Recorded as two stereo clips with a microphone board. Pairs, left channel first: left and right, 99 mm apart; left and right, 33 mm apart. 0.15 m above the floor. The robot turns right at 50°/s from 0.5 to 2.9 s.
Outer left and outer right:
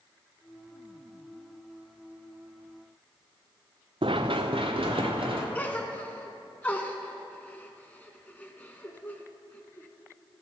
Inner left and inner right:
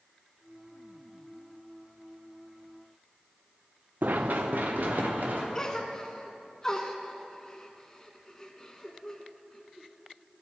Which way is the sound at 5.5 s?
15° left (ahead or behind).